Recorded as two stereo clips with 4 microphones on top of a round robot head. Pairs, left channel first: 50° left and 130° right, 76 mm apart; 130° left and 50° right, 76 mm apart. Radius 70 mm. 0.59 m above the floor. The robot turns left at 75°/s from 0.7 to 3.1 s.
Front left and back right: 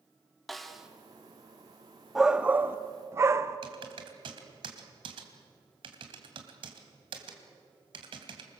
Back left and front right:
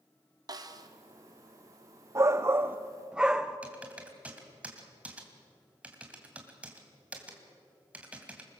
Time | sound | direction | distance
0.5 | a snare drum | 40° right | 1.6 m
2.1 | a shout | 50° right | 0.7 m
3.6 | typing on a keyboard | 120° right | 2.5 m